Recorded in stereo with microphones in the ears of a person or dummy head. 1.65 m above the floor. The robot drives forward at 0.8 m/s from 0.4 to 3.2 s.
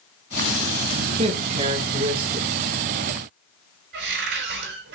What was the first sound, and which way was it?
A man speaking, 35° right (ahead or behind).